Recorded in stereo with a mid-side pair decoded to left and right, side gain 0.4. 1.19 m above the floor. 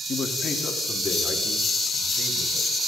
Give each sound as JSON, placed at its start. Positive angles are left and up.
{"t": 0.1, "sound": "a man speaking", "azimuth_deg": 55, "distance_m": 2.0}